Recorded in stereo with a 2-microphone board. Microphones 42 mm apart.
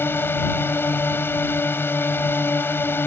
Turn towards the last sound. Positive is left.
turn(degrees=65)  # may be behind; listen again after turning